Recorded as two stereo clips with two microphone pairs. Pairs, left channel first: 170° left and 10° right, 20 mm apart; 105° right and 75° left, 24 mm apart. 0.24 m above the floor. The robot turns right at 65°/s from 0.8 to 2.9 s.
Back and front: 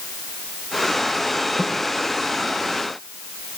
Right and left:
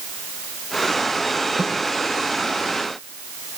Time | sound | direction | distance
1.6 | a snare drum | 95° left | 5 m